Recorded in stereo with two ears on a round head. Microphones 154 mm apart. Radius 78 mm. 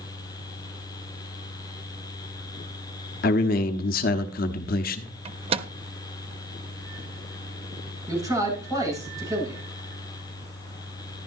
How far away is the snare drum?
No snare drum in this recording.